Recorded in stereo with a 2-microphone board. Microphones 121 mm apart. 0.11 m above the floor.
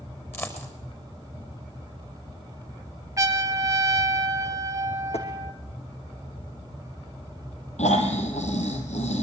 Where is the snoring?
65° left (ahead or behind), 4.5 m.